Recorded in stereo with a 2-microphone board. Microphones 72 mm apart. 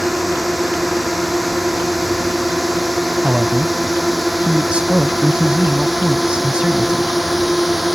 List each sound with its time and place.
0.0 s a drone: centre (ahead or behind); by 8.0 s 5° right (ahead or behind)
3.2 s a man speaking: 15° right (ahead or behind)